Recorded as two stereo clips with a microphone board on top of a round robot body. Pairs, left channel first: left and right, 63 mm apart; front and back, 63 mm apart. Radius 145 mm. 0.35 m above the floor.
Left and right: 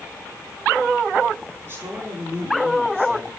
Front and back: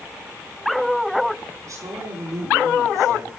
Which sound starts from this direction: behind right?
A woman speaking, at 1.6 s.